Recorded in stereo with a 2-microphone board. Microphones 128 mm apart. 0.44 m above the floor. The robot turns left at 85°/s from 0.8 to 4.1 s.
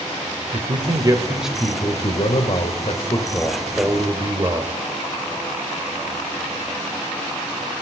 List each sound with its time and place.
0.5 s a man speaking: 120° right, 1.5 m; by 4.7 s 40° right, 1.5 m